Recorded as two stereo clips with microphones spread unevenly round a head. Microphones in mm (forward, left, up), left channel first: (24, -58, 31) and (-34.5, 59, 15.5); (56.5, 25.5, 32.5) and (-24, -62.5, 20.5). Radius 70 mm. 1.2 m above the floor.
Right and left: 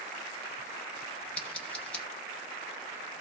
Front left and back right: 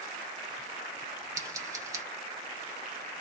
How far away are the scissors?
About 0.6 m.